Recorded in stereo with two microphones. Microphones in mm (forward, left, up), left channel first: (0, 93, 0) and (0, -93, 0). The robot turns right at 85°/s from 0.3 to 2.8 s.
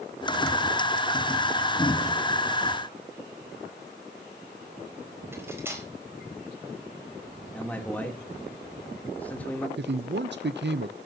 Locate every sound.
5.3 s cutlery clinking: 10° right (ahead or behind), 4 m
7.5 s a man speaking: 10° left (ahead or behind), 3 m
9.8 s a man speaking: 70° right (ahead or behind), 0.6 m